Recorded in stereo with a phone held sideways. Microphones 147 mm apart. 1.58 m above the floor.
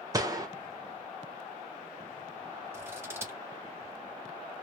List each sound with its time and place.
0.1 s a gunshot: 25° right (ahead or behind), 0.9 m
2.7 s scissors: 15° right (ahead or behind), 1.3 m